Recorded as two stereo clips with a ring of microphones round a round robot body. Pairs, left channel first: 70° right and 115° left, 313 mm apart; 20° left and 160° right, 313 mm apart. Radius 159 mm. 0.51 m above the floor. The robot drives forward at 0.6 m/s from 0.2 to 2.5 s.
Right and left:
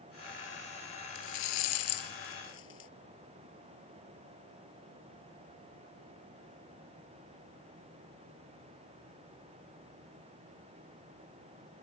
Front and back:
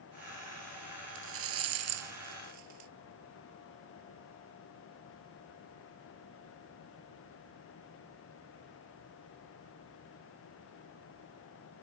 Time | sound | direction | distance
1.1 | a rattle | 105° right | ?